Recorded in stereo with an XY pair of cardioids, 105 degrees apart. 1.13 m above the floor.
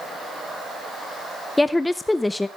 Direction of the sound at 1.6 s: 15° left.